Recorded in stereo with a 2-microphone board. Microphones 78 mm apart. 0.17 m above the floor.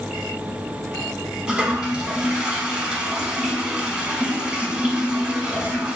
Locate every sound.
1.5 s a toilet flushing: 10° right (ahead or behind), 0.8 m